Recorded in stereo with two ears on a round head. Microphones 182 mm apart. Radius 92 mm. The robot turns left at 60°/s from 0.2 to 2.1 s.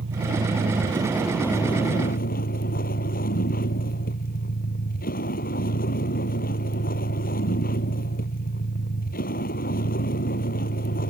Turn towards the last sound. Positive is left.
turn(degrees=135)